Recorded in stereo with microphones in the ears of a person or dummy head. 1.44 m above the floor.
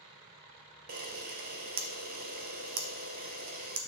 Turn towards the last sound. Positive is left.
turn(degrees=-45)  # may be behind; listen again after turning